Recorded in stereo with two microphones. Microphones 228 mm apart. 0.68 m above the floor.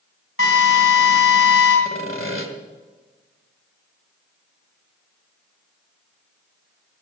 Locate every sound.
0.4 s a drill: 65° left (ahead or behind), 5 m
1.9 s sawing: 65° left (ahead or behind), 1.6 m